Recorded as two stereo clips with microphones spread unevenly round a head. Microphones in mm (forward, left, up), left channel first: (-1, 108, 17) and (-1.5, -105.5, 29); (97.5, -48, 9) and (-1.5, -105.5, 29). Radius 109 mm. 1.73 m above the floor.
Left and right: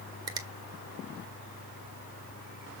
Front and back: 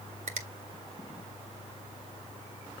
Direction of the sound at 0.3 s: 160° right.